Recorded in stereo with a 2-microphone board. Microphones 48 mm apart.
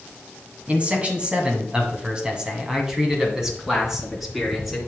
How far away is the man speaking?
About 1.9 m.